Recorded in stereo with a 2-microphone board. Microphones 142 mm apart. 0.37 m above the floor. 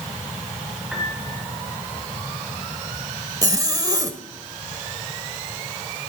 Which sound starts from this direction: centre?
A piano, at 0.9 s.